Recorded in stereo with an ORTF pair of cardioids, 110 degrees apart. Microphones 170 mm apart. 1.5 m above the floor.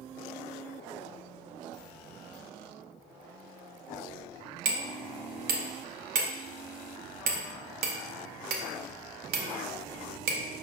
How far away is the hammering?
About 0.6 m.